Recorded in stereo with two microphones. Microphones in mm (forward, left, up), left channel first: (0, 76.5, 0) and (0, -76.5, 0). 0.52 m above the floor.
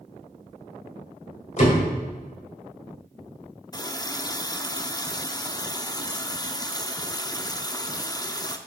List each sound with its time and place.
1.6 s a door slam: 50° left (ahead or behind), 2 m
3.7 s a running tap: 25° left (ahead or behind), 0.5 m